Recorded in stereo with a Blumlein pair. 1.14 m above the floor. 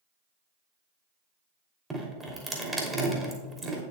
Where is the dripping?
10° right, 3 m.